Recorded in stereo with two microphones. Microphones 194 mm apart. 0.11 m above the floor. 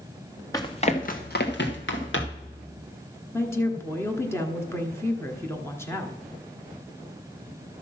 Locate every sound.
0.5 s running footsteps: 20° left (ahead or behind), 1.3 m; by 2.5 s 85° left, 2.5 m
3.3 s a woman speaking: 15° left (ahead or behind), 1.1 m